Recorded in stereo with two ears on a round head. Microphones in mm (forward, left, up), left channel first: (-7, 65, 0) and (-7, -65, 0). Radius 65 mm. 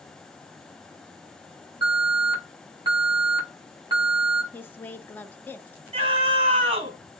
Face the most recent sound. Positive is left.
turn(degrees=-40)  # may be behind; listen again after turning